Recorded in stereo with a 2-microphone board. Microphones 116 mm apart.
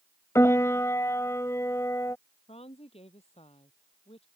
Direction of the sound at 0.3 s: 25° left (ahead or behind).